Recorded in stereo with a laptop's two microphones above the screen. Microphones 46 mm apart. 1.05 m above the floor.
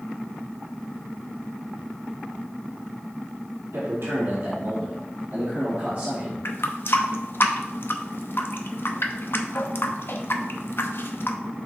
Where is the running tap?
55° left (ahead or behind), 0.7 m.